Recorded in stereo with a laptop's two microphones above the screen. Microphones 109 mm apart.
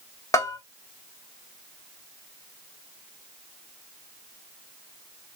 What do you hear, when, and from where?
0.3 s a bell: 30° left (ahead or behind), 0.6 m